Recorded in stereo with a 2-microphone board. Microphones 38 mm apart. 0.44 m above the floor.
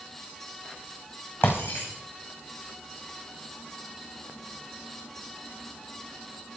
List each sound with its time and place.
1.4 s breaking glass: 80° left, 5.5 m